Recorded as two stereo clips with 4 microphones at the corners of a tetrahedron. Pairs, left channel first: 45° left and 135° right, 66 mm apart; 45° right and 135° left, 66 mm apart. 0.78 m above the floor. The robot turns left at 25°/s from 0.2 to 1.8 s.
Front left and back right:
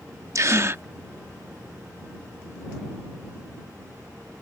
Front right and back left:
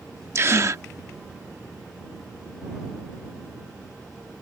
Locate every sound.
0.3 s a gasp: 175° right; by 0.8 s 175° left